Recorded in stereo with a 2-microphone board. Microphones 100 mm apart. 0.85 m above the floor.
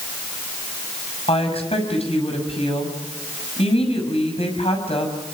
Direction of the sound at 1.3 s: 85° left.